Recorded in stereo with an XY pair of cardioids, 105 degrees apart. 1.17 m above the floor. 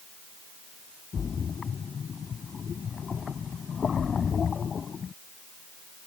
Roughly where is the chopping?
No chopping in this recording.